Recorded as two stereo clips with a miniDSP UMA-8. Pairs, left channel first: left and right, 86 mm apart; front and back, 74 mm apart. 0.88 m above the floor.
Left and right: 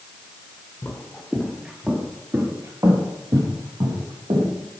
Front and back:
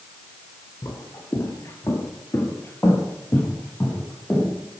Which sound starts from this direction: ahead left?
Footsteps, at 0.8 s.